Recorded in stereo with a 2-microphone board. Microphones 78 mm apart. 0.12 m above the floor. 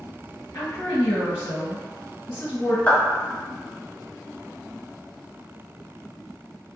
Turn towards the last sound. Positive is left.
turn(degrees=20)  # may be behind; listen again after turning